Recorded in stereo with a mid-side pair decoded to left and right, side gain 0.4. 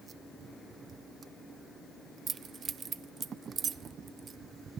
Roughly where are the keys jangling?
Ahead right.